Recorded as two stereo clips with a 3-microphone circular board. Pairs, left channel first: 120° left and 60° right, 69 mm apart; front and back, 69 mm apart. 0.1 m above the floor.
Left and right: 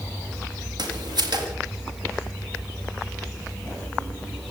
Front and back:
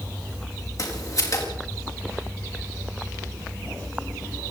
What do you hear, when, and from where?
0.8 s footsteps: 40° right, 6.5 m